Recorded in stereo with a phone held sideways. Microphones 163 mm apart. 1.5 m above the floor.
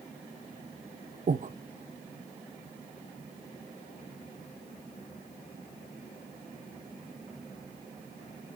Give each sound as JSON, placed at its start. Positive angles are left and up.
{"t": 1.3, "sound": "breathing", "side_deg": -55, "distance_m": 0.6}